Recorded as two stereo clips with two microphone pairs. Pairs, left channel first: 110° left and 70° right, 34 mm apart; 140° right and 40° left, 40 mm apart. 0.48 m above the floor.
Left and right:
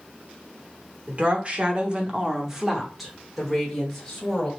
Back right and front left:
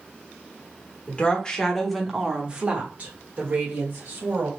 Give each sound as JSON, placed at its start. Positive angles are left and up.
{"t": 1.1, "sound": "a woman speaking", "azimuth_deg": -100, "distance_m": 1.0}